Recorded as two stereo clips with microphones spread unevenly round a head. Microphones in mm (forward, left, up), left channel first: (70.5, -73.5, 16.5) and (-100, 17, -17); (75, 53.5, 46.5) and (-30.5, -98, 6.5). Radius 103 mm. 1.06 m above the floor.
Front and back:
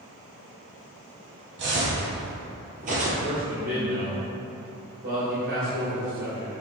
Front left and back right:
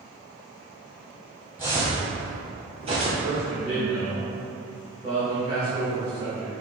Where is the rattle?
I don't hear a rattle.